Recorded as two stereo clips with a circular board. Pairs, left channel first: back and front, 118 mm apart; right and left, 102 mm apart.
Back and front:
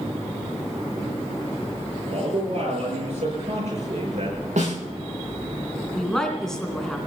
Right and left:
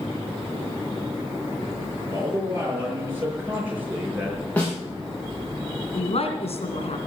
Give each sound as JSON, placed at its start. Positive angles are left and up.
{"t": 2.1, "sound": "a man speaking", "azimuth_deg": 25, "distance_m": 7.5}
{"t": 4.6, "sound": "a snare drum", "azimuth_deg": -15, "distance_m": 9.5}
{"t": 5.9, "sound": "a woman speaking", "azimuth_deg": -95, "distance_m": 2.5}